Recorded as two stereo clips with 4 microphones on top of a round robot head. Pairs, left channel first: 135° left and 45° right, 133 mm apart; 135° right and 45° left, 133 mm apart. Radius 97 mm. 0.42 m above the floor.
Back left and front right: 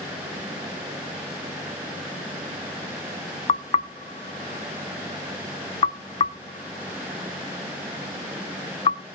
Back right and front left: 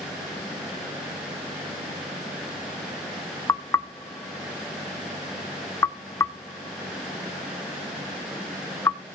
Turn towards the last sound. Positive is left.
turn(degrees=160)